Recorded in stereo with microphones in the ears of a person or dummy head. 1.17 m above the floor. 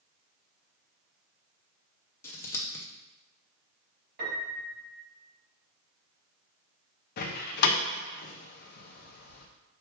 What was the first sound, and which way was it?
Scissors, 5° left (ahead or behind).